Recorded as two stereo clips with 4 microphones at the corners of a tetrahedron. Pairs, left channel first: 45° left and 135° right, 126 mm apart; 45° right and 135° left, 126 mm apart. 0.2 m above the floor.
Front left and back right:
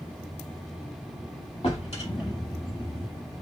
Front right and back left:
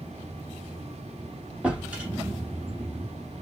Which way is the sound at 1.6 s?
55° left.